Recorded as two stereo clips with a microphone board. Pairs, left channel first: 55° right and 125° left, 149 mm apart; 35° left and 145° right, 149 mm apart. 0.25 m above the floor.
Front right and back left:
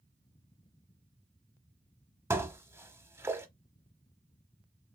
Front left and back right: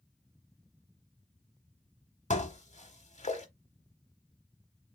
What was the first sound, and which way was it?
Dishes clattering, 55° left.